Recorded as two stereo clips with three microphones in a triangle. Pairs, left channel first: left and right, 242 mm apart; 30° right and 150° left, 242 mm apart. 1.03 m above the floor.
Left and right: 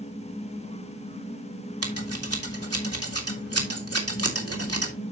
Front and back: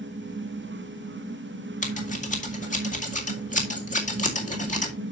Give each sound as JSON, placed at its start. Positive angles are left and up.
{"t": 1.8, "sound": "scissors", "azimuth_deg": -90, "distance_m": 2.0}